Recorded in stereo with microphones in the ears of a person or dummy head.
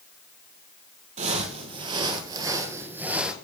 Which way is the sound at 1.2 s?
45° right (ahead or behind).